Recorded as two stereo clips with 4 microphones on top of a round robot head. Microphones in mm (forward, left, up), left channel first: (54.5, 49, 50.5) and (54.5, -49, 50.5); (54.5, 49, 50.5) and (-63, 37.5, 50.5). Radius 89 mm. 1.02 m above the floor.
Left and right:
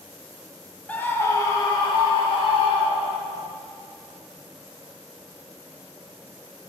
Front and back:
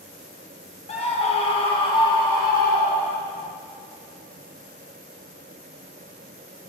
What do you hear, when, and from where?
0.9 s a scream: 15° left, 1.1 m; by 3.4 s 70° left, 2 m